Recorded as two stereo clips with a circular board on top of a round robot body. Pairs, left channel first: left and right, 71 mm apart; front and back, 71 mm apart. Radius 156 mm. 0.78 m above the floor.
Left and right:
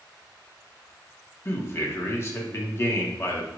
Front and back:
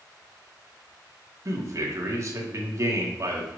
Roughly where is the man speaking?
Behind left.